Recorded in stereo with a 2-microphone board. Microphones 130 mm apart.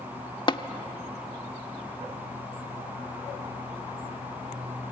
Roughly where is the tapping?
Left.